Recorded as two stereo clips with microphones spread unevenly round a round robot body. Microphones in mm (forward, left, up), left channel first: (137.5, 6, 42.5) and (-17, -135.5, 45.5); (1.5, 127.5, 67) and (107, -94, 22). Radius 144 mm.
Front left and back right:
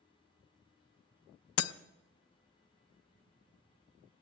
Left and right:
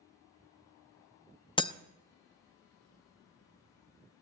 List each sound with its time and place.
1.6 s breaking glass: 40° left, 0.6 m